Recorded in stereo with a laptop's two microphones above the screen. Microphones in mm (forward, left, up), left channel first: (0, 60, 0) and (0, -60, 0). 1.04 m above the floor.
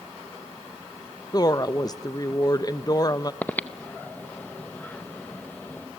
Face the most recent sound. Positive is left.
turn(degrees=15)  # may be behind; listen again after turning